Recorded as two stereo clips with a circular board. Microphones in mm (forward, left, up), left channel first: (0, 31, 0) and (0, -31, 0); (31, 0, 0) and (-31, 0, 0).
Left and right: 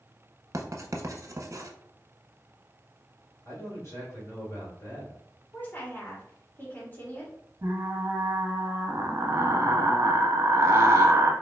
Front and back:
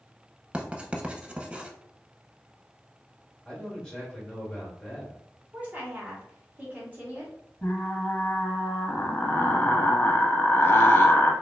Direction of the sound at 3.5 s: 75° left.